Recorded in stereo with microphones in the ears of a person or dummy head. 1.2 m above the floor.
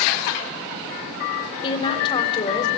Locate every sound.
1.6 s a woman speaking: 30° left (ahead or behind), 4 m